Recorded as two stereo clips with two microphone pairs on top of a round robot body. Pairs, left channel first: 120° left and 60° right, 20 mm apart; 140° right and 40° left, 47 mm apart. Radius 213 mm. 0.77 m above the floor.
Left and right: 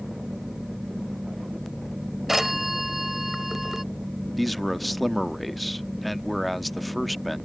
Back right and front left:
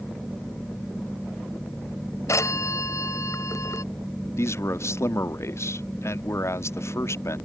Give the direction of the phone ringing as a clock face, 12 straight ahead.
5 o'clock.